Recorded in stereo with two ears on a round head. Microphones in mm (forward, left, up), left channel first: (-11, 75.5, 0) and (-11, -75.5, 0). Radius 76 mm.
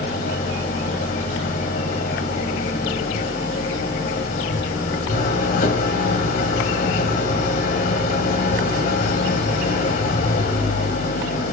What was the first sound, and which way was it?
An engine running, 60° left (ahead or behind).